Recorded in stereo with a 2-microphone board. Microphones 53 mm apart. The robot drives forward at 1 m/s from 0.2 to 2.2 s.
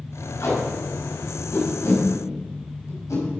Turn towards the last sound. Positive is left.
turn(degrees=75)  # may be behind; listen again after turning